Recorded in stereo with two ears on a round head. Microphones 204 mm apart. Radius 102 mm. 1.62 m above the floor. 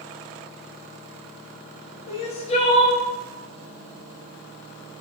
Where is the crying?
25° left (ahead or behind), 0.6 m.